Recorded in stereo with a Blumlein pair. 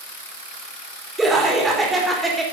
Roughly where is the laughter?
Ahead.